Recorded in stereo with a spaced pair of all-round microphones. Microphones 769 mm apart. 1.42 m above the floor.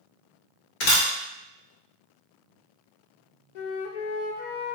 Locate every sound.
0.8 s a camera shutter: 70° left (ahead or behind), 0.8 m
3.5 s a flute: 70° left (ahead or behind), 0.5 m